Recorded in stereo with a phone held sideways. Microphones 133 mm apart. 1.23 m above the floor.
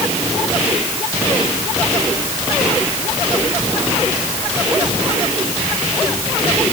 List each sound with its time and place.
Only background noise.